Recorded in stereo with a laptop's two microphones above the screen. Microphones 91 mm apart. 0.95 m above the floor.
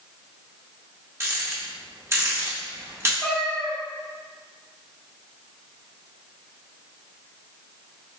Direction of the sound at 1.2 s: 30° right (ahead or behind).